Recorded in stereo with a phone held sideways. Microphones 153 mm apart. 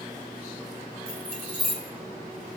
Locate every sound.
1.1 s keys jangling: 85° right, 3.5 m